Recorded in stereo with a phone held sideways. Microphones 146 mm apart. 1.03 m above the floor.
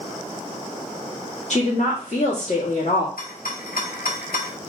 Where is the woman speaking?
55° left (ahead or behind), 1.7 m.